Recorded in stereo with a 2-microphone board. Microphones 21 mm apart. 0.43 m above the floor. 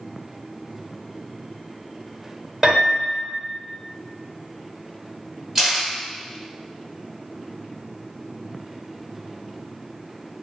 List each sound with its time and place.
2.6 s a piano: 25° right (ahead or behind), 1.2 m
5.5 s a camera shutter: 30° right (ahead or behind), 1.4 m